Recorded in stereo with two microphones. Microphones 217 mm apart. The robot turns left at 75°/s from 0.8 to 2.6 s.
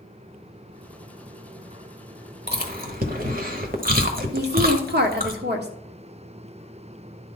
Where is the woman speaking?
50° right (ahead or behind), 1.3 m.